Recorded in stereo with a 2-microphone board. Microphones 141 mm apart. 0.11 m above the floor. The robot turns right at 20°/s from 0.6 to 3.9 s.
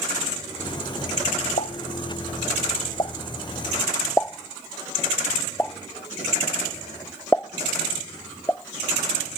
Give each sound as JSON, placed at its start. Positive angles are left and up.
{"t": 1.6, "sound": "a pop", "side_deg": 65}